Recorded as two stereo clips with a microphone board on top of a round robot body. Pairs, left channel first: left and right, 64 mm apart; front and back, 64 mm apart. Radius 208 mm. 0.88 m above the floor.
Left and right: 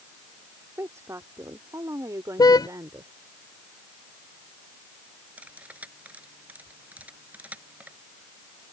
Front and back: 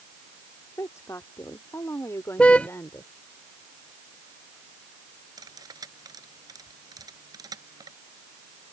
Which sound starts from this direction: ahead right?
A woman speaking, at 0.8 s.